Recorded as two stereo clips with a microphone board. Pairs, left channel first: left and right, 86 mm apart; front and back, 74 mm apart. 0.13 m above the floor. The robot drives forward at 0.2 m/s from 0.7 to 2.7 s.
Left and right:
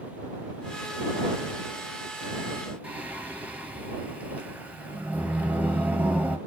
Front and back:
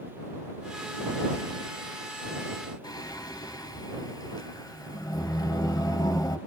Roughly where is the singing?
Ahead.